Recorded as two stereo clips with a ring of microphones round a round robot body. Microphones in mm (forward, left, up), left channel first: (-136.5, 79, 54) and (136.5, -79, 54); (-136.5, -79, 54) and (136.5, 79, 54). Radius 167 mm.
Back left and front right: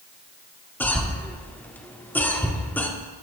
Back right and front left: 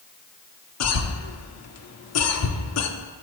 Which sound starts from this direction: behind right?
A cough, at 0.8 s.